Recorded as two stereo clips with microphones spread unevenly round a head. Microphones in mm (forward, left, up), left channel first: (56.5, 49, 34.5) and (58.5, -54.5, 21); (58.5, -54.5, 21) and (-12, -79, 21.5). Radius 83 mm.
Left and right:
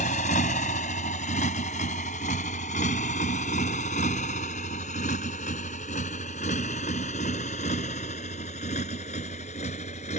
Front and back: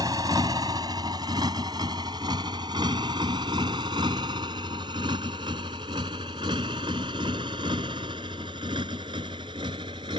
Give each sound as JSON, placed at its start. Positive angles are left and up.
{"t": 0.0, "sound": "a motorcycle", "azimuth_deg": 130}